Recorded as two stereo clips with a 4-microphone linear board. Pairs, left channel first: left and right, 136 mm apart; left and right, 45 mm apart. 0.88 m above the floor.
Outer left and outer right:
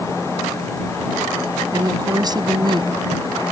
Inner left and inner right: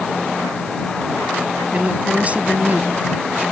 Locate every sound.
1.7 s a woman speaking: 25° right (ahead or behind); by 2.9 s 35° right (ahead or behind)